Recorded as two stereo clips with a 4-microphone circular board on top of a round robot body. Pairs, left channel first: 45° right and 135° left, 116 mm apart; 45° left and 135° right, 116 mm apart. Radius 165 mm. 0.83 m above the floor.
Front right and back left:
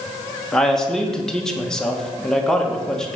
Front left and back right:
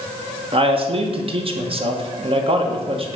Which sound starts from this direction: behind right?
A man speaking, at 0.5 s.